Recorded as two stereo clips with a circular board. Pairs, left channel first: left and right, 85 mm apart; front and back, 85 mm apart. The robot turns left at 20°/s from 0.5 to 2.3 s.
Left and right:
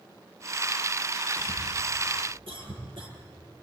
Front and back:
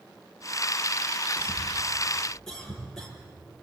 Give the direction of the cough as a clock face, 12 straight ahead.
2 o'clock.